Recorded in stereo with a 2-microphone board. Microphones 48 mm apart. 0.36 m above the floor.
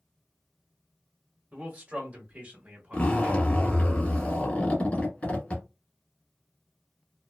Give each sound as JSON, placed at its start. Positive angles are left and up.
{"t": 1.5, "sound": "a man speaking", "side_deg": -30, "distance_m": 1.5}
{"t": 2.9, "sound": "a zipper", "side_deg": 30, "distance_m": 1.5}